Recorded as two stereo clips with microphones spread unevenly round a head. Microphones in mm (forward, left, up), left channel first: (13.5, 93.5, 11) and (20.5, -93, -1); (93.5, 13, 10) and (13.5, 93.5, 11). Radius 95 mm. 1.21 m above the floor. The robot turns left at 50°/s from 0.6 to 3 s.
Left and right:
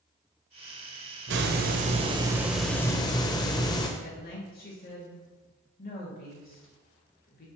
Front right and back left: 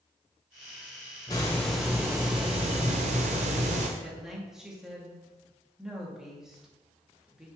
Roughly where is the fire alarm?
No fire alarm in this recording.